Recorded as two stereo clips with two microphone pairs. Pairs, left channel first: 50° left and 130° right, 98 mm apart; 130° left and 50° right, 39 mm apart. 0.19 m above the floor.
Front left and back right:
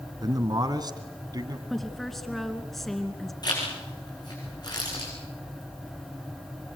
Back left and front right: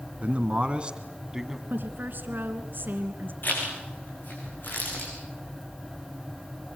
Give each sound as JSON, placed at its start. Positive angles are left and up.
{"t": 0.2, "sound": "a man speaking", "azimuth_deg": -95, "distance_m": 2.0}
{"t": 1.7, "sound": "a woman speaking", "azimuth_deg": -40, "distance_m": 2.5}
{"t": 3.4, "sound": "a zipper", "azimuth_deg": 95, "distance_m": 7.5}